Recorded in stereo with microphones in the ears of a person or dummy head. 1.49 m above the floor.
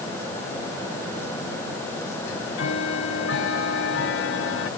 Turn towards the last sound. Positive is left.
turn(degrees=70)  # may be behind; listen again after turning